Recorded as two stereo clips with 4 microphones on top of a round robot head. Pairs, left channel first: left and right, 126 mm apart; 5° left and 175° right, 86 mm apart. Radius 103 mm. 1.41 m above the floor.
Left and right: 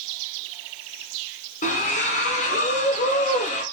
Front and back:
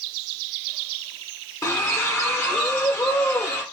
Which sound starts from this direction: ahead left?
A splash, at 1.6 s.